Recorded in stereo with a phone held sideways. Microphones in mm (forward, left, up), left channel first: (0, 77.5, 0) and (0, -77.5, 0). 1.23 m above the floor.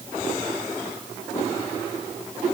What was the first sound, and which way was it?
Only background noise.